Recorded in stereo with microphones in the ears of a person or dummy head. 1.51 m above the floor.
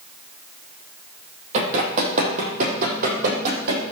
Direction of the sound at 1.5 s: 40° right (ahead or behind).